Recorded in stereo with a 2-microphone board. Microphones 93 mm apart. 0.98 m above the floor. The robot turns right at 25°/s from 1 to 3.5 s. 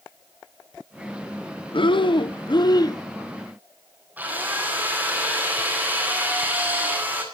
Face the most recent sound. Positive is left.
turn(degrees=-20)  # may be behind; listen again after turning